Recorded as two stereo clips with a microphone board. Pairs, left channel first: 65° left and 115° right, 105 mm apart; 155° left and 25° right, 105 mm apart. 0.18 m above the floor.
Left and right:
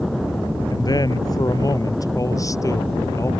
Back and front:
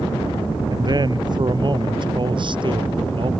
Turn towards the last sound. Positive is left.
turn(degrees=10)